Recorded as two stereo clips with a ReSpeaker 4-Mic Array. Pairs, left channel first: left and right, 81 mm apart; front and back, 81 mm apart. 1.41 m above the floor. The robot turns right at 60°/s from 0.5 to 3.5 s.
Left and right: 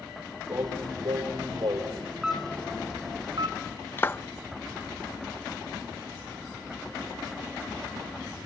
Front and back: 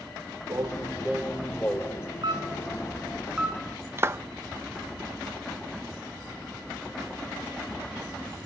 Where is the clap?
140° left, 0.7 m.